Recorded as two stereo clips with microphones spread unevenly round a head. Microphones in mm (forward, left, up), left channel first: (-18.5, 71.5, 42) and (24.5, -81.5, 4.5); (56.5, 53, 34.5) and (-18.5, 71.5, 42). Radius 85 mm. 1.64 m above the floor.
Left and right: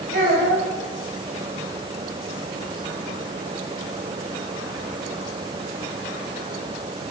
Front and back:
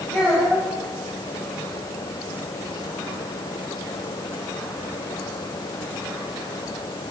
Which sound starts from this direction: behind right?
A child speaking, at 0.1 s.